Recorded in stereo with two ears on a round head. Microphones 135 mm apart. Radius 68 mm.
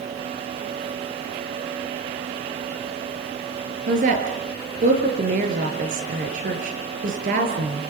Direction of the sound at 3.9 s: 55° right (ahead or behind).